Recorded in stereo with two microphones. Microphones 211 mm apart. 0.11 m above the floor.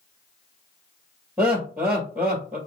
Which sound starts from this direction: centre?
Laughter, at 1.4 s.